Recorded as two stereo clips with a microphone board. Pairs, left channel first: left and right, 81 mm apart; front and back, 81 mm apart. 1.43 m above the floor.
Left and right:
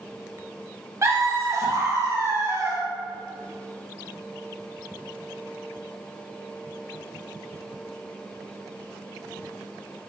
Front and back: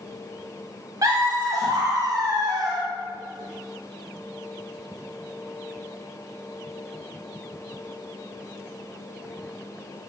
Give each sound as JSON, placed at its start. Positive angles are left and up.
{"t": 1.0, "sound": "laughter", "azimuth_deg": -140, "distance_m": 0.9}